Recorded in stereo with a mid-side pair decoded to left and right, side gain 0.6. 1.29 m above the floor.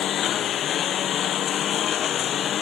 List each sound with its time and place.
0.0 s a lawn mower: 50° left